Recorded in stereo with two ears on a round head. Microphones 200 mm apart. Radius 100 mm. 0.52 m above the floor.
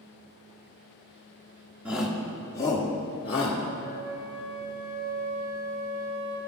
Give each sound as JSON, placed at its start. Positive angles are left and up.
{"t": 1.9, "sound": "a shout", "side_deg": -5, "distance_m": 0.9}
{"t": 3.8, "sound": "a flute", "side_deg": -55, "distance_m": 1.6}